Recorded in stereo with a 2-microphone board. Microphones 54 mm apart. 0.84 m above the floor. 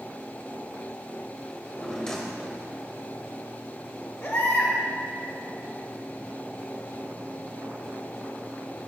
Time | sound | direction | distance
1.5 | a drawer | 10° left (ahead or behind) | 1.8 m
4.2 | a baby crying | 45° left (ahead or behind) | 3 m